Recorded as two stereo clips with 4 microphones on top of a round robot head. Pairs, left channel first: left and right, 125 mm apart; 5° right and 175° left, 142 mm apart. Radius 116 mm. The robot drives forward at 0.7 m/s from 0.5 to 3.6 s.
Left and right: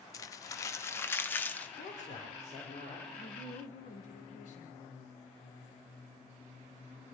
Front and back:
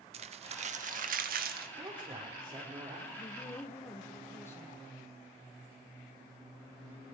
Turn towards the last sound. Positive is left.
turn(degrees=65)